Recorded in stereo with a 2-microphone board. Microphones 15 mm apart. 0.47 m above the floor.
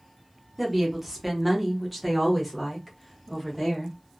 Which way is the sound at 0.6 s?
15° right (ahead or behind).